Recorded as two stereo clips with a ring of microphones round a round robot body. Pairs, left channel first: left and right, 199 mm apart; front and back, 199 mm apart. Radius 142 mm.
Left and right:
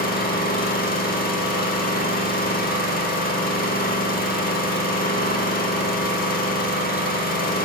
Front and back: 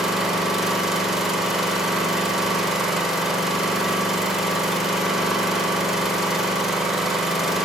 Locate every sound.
0.0 s an engine running: 90° left, 0.8 m